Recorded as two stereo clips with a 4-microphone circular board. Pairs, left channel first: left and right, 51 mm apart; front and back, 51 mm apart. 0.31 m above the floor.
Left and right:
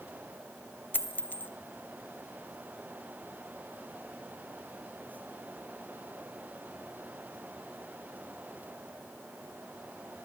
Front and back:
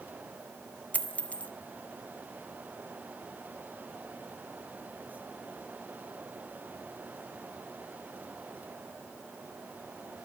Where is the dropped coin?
50° left, 0.7 m.